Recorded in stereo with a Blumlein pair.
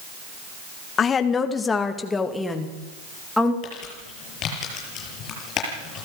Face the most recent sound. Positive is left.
turn(degrees=30)